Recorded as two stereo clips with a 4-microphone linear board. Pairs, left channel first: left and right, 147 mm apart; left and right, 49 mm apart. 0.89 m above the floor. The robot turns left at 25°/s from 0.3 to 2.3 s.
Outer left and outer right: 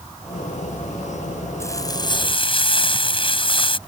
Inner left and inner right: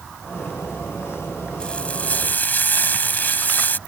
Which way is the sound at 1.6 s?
20° left (ahead or behind).